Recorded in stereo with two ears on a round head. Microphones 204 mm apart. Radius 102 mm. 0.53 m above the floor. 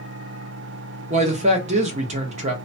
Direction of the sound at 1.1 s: 30° right (ahead or behind).